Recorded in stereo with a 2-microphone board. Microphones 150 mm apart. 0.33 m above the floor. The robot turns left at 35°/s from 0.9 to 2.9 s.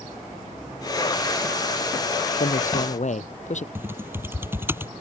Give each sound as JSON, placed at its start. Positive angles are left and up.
{"t": 2.4, "sound": "a man speaking", "side_deg": 75}
{"t": 3.8, "sound": "typing on a keyboard", "side_deg": -15}